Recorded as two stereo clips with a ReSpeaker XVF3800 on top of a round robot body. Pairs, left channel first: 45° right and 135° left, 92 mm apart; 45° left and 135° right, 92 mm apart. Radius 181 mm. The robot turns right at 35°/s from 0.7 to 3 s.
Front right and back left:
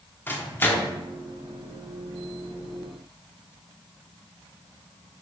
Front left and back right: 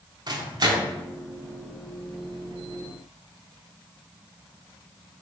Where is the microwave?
110° right, 0.7 m; by 0.9 s 100° right, 0.7 m.